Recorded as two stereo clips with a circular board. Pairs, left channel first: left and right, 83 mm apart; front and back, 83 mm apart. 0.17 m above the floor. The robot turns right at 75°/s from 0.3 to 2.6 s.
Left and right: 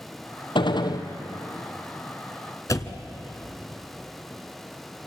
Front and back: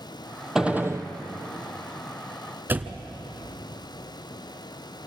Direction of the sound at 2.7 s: 120° left.